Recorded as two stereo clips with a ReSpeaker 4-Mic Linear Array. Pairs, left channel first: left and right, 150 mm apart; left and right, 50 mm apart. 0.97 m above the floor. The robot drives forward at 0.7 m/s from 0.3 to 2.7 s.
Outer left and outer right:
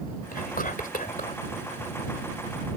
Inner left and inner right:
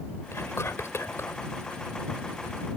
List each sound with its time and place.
0.3 s whispering: 75° left (ahead or behind); by 1.4 s 65° left (ahead or behind)